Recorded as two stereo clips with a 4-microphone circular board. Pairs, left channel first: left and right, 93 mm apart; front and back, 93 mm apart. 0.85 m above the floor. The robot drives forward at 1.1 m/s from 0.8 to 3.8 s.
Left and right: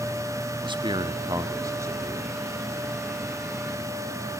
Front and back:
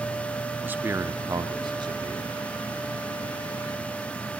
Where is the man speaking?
115° right, 1.2 m; by 2.5 s 155° right, 2.5 m.